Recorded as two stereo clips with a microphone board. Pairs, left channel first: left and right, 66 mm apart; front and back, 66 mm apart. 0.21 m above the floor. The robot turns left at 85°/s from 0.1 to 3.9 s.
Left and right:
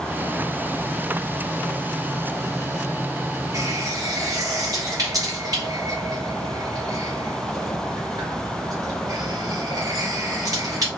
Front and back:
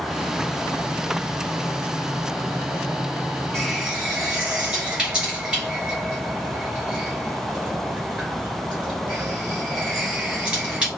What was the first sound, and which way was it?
A running tap, 80° right.